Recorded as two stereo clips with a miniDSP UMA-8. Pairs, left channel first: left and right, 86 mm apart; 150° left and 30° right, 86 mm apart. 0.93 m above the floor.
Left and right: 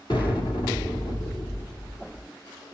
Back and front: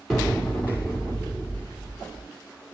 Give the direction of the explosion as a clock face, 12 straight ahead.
10 o'clock.